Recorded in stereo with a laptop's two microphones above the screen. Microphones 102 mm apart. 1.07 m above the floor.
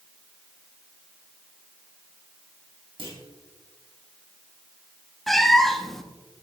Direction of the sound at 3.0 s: 55° right (ahead or behind).